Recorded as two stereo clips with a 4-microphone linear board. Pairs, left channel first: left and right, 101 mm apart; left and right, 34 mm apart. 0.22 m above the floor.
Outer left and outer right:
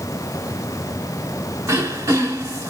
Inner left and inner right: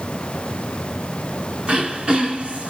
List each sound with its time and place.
1.7 s throat clearing: 30° right (ahead or behind), 1.8 m